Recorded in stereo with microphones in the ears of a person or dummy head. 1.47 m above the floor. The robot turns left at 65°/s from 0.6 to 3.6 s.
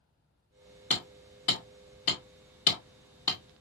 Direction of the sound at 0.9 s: 5° left (ahead or behind).